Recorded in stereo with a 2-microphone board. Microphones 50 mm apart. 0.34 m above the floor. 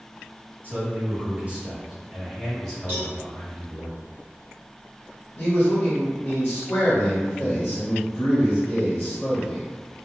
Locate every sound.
0.6 s a man speaking: 40° right (ahead or behind), 1.6 m; by 3.9 s 25° left (ahead or behind), 1.6 m
2.9 s a cowbell: 45° right (ahead or behind), 1.3 m
5.4 s a man speaking: 35° left (ahead or behind), 1.5 m